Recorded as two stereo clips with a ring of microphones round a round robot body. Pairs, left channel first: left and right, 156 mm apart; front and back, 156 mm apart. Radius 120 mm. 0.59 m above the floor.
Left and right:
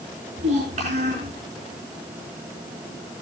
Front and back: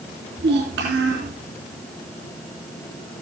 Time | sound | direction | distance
0.4 | a child speaking | 150° right | 4 m